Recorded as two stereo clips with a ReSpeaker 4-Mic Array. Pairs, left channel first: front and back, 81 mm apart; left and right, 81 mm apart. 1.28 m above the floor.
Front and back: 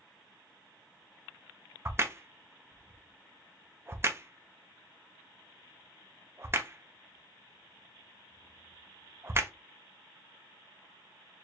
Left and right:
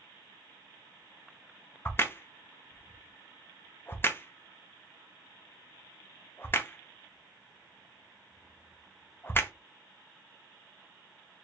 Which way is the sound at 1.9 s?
135° left.